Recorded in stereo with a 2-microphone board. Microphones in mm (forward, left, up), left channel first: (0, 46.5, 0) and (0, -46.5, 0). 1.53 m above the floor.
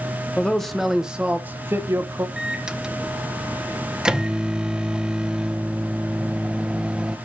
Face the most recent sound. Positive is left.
turn(degrees=-10)  # may be behind; listen again after turning